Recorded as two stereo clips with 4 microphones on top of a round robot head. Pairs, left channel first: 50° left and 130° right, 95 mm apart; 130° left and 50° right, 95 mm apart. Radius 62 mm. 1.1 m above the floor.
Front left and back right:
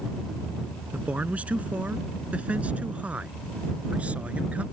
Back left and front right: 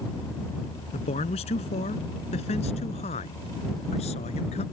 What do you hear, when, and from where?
0.9 s a man speaking: 150° left